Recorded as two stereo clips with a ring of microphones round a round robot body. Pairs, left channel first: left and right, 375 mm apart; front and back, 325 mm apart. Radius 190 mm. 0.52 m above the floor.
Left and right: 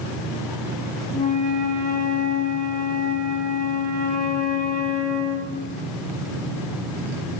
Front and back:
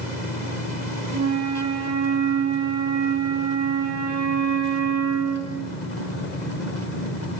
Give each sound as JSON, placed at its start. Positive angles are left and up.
{"t": 1.1, "sound": "a flute", "azimuth_deg": 155, "distance_m": 1.3}